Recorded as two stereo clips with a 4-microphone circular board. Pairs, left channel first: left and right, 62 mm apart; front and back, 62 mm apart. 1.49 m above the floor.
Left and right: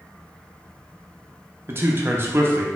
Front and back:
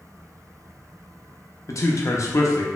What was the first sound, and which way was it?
A man speaking, 35° right.